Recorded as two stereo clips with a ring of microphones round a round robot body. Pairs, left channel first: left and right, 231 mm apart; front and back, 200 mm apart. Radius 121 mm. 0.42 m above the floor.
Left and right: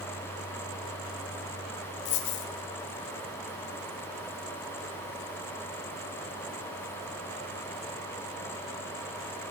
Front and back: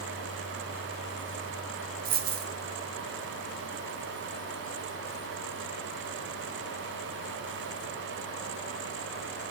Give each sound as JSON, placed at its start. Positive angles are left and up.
{"t": 2.0, "sound": "a dropped coin", "azimuth_deg": 135, "distance_m": 0.6}